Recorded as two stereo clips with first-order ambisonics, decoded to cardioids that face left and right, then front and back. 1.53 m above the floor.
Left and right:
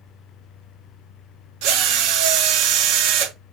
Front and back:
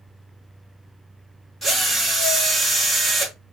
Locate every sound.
1.6 s a drill: 85° right, 1.5 m